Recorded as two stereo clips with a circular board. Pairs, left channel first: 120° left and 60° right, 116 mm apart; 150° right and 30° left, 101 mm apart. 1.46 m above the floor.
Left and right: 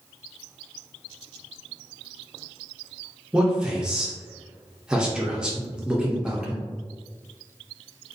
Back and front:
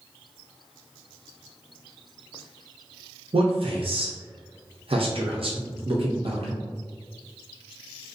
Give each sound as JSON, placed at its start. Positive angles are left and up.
{"t": 3.3, "sound": "a man speaking", "azimuth_deg": 20, "distance_m": 0.5}